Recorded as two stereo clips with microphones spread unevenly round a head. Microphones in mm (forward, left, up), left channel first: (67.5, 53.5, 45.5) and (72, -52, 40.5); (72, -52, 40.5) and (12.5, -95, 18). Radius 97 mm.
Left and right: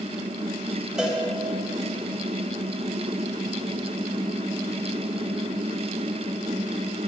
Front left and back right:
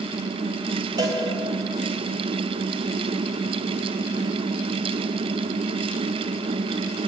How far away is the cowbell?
About 0.6 m.